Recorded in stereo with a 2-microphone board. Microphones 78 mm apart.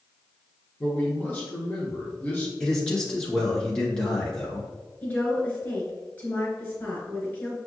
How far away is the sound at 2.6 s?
About 1.5 m.